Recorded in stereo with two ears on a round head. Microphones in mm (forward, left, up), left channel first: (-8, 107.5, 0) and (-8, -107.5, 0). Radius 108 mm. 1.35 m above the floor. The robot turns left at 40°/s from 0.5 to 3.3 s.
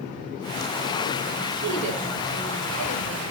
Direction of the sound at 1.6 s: 45° right.